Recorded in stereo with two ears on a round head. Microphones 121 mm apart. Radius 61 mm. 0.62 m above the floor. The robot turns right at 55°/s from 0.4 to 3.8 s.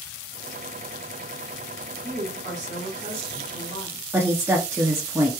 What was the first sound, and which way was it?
A woman speaking, 115° right.